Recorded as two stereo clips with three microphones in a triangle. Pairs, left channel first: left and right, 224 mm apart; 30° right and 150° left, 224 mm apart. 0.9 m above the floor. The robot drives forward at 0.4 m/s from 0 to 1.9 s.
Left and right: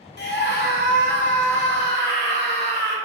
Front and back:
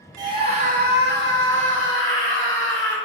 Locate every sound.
0.2 s a scream: 85° left, 0.5 m; by 3.0 s 145° left, 0.8 m